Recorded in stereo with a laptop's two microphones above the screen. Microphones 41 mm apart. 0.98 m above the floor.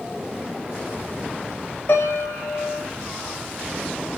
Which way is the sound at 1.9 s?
50° left (ahead or behind).